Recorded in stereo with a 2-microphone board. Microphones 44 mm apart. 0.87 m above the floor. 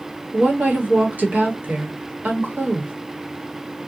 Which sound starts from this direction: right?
A woman speaking, at 0.3 s.